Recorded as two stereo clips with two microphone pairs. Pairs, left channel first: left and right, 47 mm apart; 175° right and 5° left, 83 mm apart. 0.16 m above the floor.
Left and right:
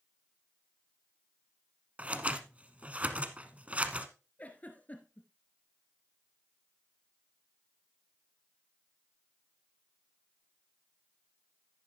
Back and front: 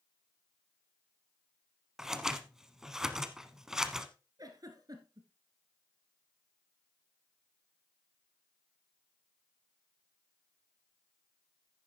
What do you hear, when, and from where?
2.0 s scissors: 70° right, 0.9 m
4.4 s a giggle: 40° left, 1.6 m